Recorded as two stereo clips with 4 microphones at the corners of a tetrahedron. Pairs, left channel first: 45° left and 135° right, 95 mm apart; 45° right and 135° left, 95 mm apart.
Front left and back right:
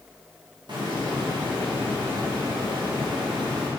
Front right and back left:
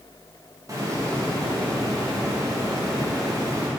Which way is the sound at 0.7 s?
175° right.